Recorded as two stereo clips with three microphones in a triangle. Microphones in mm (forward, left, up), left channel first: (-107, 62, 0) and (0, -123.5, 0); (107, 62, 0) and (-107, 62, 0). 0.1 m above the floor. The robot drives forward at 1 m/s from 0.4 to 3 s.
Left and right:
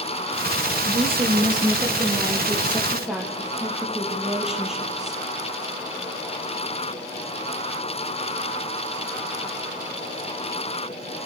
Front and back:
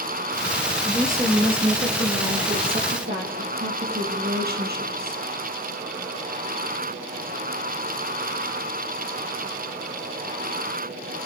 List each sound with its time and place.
0.8 s a woman speaking: 105° right, 2.5 m; by 5.2 s 150° right, 3.5 m